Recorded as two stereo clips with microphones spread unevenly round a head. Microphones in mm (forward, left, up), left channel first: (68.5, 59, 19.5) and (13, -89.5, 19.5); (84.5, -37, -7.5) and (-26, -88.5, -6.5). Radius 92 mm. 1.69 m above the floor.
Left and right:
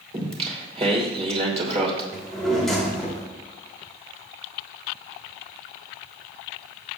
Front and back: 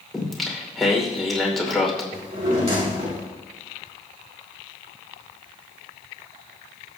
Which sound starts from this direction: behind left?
A drawer, at 2.1 s.